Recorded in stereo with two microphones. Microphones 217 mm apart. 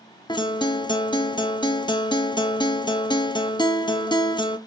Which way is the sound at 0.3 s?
20° left (ahead or behind).